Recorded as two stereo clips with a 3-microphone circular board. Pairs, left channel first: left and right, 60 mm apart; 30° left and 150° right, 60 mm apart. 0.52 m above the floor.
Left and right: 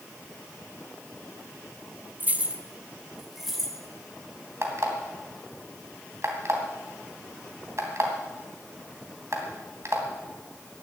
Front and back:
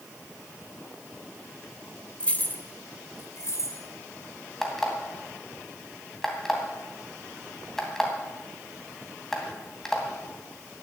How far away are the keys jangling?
About 0.8 m.